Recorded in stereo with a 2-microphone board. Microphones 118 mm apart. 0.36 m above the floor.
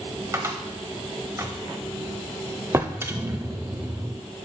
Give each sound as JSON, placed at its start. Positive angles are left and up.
{"t": 0.3, "sound": "a cupboard door", "side_deg": -25, "distance_m": 0.8}
{"t": 2.7, "sound": "a drawer", "side_deg": -20, "distance_m": 0.5}